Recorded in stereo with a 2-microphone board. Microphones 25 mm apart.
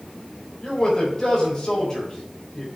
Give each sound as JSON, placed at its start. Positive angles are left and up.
{"t": 0.6, "sound": "a man speaking", "side_deg": 30, "distance_m": 3.0}